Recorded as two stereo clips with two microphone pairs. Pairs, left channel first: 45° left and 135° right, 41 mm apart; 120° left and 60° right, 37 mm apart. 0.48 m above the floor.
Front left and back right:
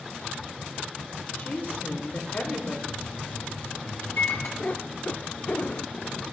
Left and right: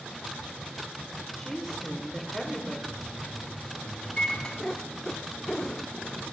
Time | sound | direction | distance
1.4 | a woman speaking | 40° left | 1.8 m
2.9 | a microwave | 50° left | 2.5 m
4.6 | a cat meowing | 45° left | 0.5 m